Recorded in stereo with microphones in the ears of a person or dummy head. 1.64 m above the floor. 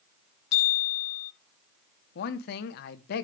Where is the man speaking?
50° left (ahead or behind), 1.0 m.